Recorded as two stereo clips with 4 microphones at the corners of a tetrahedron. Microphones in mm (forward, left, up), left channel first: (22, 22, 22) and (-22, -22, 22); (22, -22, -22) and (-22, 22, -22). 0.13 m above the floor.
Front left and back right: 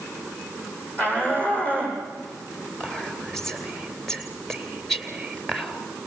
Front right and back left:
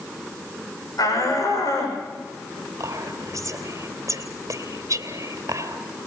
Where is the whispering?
130° left, 2.5 m.